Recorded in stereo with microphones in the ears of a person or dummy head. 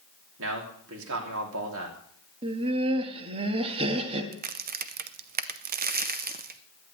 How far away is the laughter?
About 1.6 m.